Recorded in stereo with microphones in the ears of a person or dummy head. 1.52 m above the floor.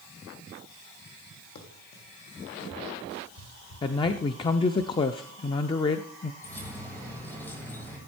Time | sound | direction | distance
1.6 | running footsteps | 55° left (ahead or behind) | 3 m
3.8 | a man speaking | 30° left (ahead or behind) | 0.5 m
6.4 | keys jangling | 10° left (ahead or behind) | 4 m